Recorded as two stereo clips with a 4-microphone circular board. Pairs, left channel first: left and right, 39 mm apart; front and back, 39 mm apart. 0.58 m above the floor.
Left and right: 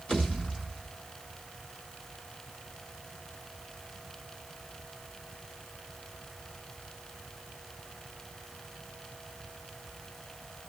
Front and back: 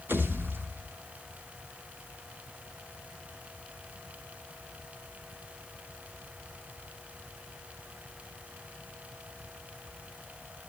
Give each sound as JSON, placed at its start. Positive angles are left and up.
{"t": 0.1, "sound": "a pop", "azimuth_deg": 150, "distance_m": 4.5}